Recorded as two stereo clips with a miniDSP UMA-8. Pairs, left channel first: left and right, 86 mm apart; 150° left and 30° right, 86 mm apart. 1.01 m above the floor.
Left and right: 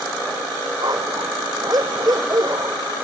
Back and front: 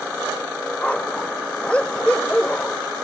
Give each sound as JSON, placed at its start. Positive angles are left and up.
{"t": 0.8, "sound": "a dog barking", "azimuth_deg": -135}